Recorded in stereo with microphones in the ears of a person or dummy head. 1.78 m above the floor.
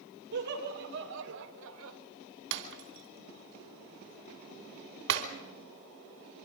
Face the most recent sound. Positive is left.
turn(degrees=-65)  # may be behind; listen again after turning